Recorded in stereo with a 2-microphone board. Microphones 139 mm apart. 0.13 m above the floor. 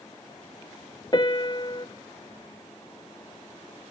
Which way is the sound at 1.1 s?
35° left (ahead or behind).